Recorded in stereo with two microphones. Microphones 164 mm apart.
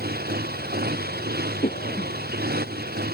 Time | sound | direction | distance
0.0 | a motorcycle | 75° right (ahead or behind) | ?
1.6 | a cough | 50° left (ahead or behind) | ?